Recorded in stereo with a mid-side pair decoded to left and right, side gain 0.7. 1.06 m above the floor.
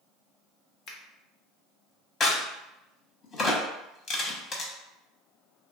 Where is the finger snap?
50° left, 0.7 m.